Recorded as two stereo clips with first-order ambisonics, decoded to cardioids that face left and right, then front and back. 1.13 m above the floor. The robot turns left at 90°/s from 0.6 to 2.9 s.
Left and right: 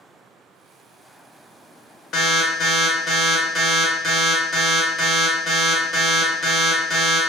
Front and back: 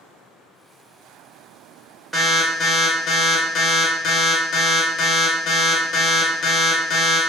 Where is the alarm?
85° left, 0.6 m; by 7.2 s 15° left, 0.6 m.